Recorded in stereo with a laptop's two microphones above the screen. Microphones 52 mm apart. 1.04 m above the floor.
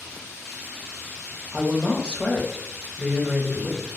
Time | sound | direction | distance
1.5 | a woman speaking | 20° right (ahead or behind) | 0.6 m